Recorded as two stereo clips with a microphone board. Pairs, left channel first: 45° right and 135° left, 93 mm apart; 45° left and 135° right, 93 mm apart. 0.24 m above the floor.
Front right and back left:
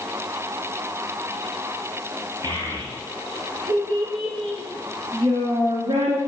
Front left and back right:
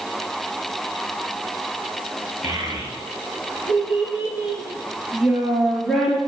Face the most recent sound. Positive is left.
turn(degrees=130)